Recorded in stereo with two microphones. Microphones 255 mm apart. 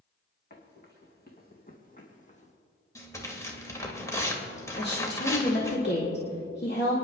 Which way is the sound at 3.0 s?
10° left (ahead or behind).